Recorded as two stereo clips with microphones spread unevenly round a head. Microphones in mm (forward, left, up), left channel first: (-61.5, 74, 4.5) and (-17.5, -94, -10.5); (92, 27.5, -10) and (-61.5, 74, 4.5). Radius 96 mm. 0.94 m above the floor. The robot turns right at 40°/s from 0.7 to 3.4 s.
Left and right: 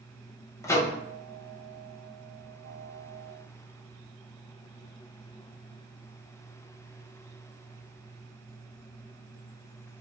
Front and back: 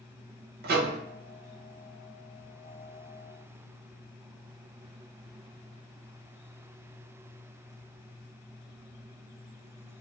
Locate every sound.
0.6 s a microwave: straight behind, 0.6 m; by 1.0 s 170° right, 0.6 m